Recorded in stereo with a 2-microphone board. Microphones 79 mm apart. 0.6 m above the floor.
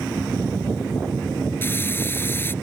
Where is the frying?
25° left (ahead or behind).